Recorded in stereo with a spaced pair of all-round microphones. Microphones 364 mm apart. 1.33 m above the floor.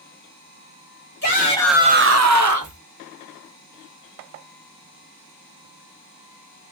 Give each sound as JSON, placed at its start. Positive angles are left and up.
{"t": 1.2, "sound": "a shout", "side_deg": 30, "distance_m": 0.9}